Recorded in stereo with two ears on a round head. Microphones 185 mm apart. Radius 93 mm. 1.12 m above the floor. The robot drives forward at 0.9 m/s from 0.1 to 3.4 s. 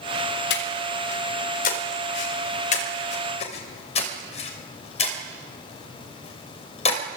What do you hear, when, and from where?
0.5 s breathing: 60° left (ahead or behind), 4 m; by 7.0 s 35° left (ahead or behind), 5.5 m